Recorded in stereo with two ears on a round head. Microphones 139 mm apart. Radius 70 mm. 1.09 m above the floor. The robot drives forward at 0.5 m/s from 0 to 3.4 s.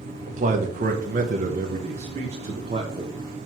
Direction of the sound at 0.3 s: 45° right (ahead or behind).